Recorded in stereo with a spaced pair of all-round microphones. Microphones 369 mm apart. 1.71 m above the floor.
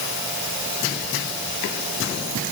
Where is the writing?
I don't hear writing.